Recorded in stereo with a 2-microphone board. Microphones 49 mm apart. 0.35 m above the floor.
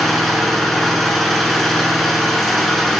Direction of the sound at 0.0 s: Centre (ahead or behind).